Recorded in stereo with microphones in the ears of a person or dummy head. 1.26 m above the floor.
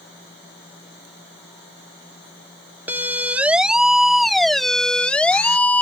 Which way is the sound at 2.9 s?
10° right (ahead or behind).